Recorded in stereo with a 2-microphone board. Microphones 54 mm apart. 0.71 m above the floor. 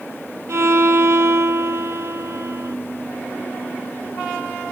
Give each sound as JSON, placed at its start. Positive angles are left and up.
{"t": 0.5, "sound": "a violin", "side_deg": -60, "distance_m": 0.6}